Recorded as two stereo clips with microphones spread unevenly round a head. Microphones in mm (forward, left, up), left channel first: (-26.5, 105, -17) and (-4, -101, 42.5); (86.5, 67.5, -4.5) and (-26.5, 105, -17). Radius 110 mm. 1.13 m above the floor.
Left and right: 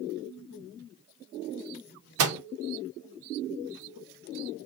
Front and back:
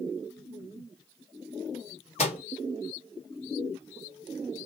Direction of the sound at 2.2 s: 65° right.